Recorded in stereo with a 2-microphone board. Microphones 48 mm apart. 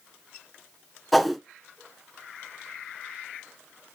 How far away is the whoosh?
About 0.6 m.